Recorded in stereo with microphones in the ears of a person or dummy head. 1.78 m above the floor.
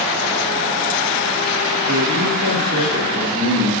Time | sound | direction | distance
1.9 | a man speaking | 65° right (ahead or behind) | 1.3 m